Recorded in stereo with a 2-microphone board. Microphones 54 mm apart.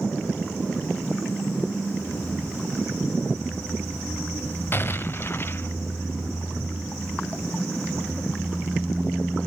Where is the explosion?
40° left (ahead or behind), 0.6 m.